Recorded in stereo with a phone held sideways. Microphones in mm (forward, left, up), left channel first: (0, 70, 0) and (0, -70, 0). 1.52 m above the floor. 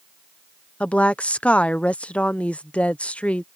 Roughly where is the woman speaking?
Centre.